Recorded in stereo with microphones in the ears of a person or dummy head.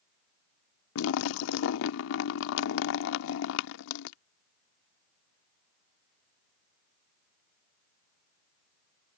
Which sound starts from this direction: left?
A splash, at 0.9 s.